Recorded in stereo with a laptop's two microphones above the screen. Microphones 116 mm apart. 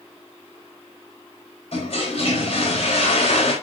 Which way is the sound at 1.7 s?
55° left (ahead or behind).